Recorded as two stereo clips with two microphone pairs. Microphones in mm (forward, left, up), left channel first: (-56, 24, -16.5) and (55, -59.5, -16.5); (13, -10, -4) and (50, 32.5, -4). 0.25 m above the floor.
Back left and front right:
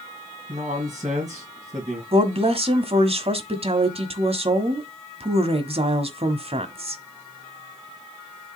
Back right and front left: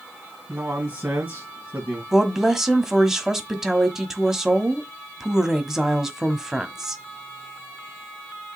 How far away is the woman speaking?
About 1.3 m.